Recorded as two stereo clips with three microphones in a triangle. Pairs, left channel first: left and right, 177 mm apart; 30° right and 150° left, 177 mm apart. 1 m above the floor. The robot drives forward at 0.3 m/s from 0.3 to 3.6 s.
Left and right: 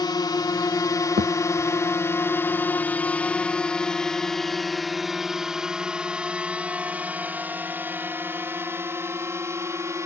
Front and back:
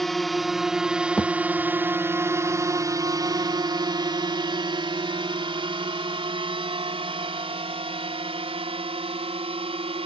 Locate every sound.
0.0 s a drone: 55° left; by 10.1 s 160° right
1.2 s a thud: 115° right